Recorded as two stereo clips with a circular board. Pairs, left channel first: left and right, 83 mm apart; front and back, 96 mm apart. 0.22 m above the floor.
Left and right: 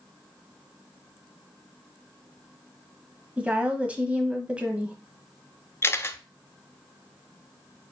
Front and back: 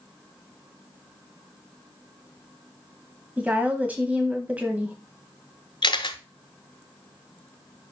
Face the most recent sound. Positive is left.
turn(degrees=30)